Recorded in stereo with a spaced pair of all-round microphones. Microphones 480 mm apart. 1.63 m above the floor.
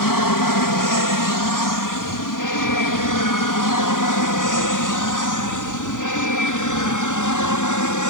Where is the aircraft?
45° left (ahead or behind); by 8.1 s 40° left (ahead or behind).